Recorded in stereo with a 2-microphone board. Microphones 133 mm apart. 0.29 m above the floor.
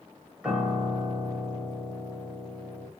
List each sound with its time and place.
0.4 s a piano: 10° right (ahead or behind), 1.2 m